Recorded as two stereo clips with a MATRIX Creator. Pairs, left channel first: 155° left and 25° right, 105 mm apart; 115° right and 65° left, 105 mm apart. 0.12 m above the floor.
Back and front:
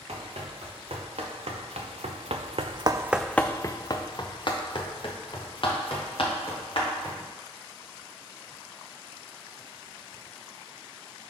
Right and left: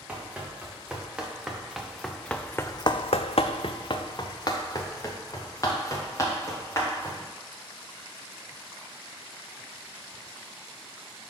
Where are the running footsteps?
10° right, 2.5 m; by 7.3 s 175° right, 3.5 m.